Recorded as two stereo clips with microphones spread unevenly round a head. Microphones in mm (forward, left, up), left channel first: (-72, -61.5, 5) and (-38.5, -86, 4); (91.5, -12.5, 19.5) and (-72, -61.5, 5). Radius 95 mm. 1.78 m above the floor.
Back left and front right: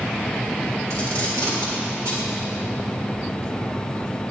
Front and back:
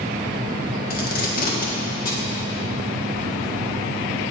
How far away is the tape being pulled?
About 1.8 m.